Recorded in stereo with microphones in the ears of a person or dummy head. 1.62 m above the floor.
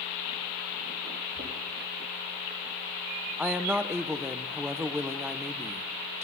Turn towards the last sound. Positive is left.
turn(degrees=5)  # may be behind; listen again after turning